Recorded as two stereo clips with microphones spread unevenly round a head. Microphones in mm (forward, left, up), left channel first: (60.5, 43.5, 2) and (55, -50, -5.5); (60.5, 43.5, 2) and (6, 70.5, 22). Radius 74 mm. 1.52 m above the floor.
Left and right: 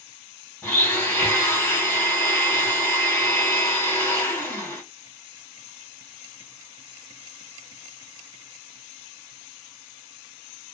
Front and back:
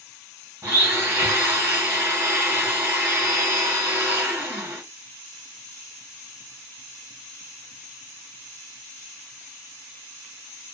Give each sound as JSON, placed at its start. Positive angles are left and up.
{"t": 0.6, "sound": "a blender", "azimuth_deg": 155, "distance_m": 1.7}